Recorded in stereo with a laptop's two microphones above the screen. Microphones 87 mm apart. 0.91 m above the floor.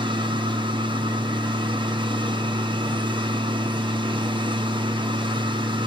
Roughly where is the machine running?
Right.